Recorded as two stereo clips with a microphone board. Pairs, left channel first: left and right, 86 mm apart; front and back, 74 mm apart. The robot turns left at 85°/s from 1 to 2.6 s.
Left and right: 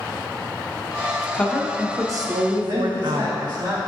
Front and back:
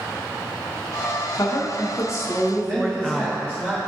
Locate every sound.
1.3 s a woman speaking: 20° left, 0.7 m; by 3.7 s 85° right, 0.7 m
2.7 s a man speaking: 125° right, 1.4 m